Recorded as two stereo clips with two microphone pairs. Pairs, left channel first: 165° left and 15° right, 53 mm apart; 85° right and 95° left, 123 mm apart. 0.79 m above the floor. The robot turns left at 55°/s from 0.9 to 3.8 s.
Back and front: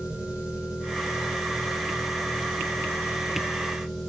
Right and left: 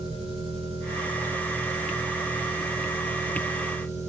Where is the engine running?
55° left, 8.5 m; by 4.1 s 105° right, 8.5 m.